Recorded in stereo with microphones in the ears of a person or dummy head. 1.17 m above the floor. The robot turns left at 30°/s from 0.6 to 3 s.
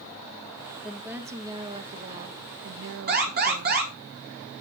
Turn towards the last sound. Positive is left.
turn(degrees=-45)  # may be behind; listen again after turning